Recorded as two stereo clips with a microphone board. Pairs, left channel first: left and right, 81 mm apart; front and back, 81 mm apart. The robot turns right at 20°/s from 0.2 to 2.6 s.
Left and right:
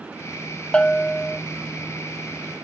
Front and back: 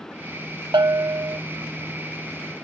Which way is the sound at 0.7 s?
165° left.